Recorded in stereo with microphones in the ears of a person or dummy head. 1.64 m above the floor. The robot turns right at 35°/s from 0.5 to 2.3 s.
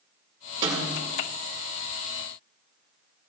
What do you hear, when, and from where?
0.6 s a snare drum: 20° right (ahead or behind), 3.5 m; by 1.1 s 5° right (ahead or behind), 3.5 m